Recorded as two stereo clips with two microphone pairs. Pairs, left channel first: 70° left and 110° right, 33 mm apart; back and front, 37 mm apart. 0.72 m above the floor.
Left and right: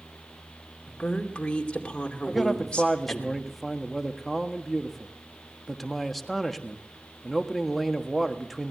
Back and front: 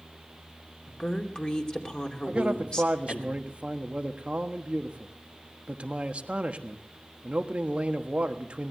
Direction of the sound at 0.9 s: 125° left.